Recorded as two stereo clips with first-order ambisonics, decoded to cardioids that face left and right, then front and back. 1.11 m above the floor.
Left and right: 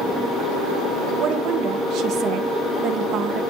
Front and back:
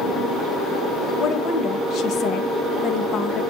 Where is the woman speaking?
50° right, 0.8 m.